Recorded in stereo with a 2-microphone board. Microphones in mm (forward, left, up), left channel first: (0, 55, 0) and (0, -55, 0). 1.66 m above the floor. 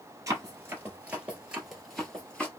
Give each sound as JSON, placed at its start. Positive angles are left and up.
{"t": 0.3, "sound": "running footsteps", "side_deg": -25, "distance_m": 1.9}